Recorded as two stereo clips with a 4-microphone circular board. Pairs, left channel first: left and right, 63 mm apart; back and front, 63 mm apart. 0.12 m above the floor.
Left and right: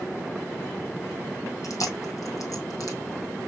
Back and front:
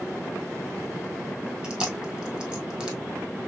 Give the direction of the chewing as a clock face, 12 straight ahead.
10 o'clock.